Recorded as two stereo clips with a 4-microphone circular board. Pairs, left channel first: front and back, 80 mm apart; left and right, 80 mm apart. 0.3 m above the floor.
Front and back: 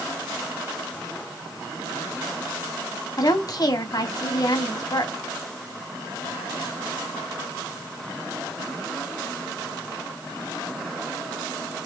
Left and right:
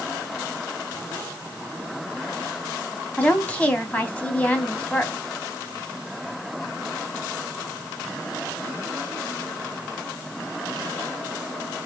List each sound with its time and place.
3.2 s a woman speaking: 20° left, 2 m